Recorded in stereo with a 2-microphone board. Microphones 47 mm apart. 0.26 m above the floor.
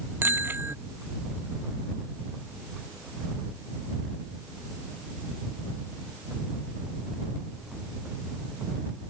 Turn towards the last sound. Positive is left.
turn(degrees=-45)  # may be behind; listen again after turning